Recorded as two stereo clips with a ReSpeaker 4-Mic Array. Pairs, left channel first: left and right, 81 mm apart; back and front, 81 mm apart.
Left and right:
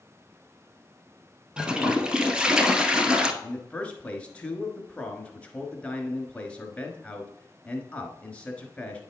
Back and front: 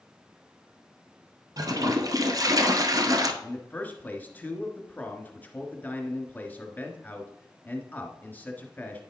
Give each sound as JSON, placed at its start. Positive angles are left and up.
{"t": 1.6, "sound": "a toilet flushing", "azimuth_deg": -15, "distance_m": 0.9}
{"t": 3.4, "sound": "a man speaking", "azimuth_deg": 140, "distance_m": 1.3}